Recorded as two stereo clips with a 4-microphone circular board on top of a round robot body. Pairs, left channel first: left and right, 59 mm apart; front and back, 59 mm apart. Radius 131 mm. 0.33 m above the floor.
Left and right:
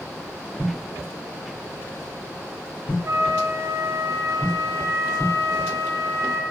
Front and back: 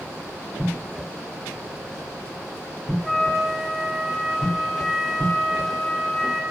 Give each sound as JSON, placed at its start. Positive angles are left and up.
{"t": 3.0, "sound": "a flute", "azimuth_deg": -85, "distance_m": 1.1}